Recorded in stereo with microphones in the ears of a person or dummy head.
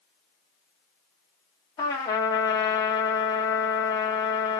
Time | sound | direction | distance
1.8 | a trumpet | 20° left (ahead or behind) | 1.0 m